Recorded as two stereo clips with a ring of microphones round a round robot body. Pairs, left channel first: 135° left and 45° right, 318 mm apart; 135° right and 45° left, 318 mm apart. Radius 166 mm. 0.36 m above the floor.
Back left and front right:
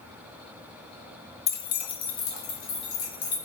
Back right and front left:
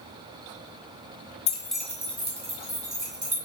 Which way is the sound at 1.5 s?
175° right.